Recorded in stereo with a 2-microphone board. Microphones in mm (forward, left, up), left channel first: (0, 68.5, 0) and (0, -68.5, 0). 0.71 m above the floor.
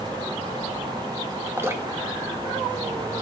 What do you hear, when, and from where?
1.6 s dripping: 20° right (ahead or behind), 0.9 m